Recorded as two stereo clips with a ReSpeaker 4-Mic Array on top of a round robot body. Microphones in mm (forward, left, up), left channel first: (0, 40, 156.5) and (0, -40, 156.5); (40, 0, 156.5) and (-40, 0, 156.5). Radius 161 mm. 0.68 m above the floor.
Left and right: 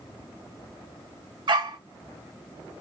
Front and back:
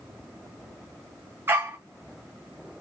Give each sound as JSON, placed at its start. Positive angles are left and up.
{"t": 1.5, "sound": "a dog barking", "azimuth_deg": -115, "distance_m": 0.7}